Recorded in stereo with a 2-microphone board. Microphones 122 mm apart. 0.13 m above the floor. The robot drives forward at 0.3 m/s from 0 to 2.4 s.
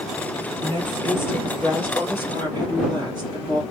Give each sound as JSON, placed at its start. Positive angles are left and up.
{"t": 0.6, "sound": "a woman speaking", "side_deg": 20, "distance_m": 3.5}